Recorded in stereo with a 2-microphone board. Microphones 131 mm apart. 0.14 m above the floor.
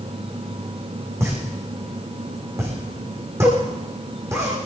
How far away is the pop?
About 7 m.